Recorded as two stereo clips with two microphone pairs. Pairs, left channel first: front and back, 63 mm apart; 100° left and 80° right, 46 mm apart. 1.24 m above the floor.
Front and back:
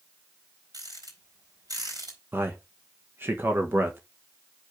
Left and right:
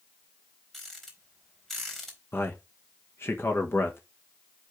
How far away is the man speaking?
About 1.3 m.